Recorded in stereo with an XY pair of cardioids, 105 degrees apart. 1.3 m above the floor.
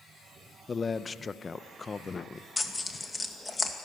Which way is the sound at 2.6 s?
20° left.